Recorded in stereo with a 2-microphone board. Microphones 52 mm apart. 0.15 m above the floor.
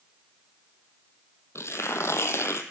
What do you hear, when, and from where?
1.6 s tearing paper: 65° left (ahead or behind), 0.7 m